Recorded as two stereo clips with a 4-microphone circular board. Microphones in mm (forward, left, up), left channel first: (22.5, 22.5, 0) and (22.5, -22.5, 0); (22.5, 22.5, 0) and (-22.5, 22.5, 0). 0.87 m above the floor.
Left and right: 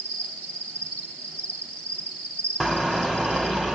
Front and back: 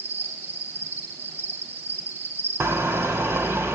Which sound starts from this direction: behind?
A car horn, at 2.6 s.